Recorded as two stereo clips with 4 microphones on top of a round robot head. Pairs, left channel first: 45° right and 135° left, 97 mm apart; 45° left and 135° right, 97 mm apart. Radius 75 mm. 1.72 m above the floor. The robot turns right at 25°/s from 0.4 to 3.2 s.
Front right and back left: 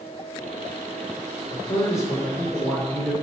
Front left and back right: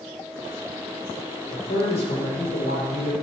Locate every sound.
1.5 s a man speaking: 5° left, 6 m; by 3.1 s 45° left, 6 m